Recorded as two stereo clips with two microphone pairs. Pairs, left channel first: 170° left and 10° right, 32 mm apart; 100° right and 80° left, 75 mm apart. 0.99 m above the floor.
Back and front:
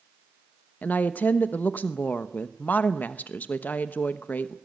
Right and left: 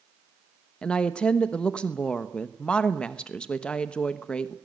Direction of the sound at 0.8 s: 175° right.